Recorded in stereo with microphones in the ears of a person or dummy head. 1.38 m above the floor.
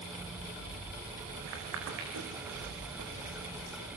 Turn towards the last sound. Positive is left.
turn(degrees=-80)